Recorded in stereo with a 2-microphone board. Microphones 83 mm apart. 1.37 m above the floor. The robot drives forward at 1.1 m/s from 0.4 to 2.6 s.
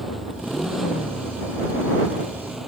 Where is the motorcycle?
Centre (ahead or behind); by 2.7 s 5° right (ahead or behind).